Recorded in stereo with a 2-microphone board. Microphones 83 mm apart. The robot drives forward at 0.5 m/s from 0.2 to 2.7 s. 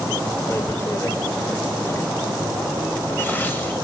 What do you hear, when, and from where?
0.5 s tearing paper: 40° left (ahead or behind), 1.5 m; by 3.7 s 25° left (ahead or behind), 2 m